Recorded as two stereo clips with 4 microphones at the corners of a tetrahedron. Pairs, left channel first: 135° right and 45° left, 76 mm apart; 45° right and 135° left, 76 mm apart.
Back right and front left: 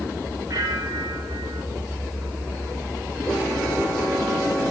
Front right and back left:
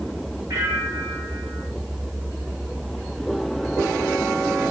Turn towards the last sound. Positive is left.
turn(degrees=90)